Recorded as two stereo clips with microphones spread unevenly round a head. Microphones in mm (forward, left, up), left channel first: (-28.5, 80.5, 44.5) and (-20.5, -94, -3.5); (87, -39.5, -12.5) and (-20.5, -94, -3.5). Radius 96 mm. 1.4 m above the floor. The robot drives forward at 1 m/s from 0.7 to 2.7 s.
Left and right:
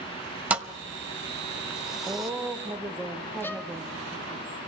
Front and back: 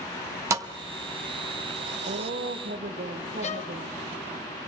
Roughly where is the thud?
Behind.